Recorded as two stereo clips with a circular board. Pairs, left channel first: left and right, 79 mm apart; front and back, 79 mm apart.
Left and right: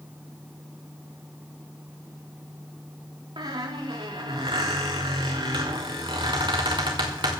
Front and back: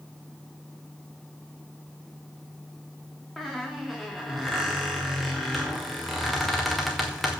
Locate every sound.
3.4 s a squeak: 90° right, 2.5 m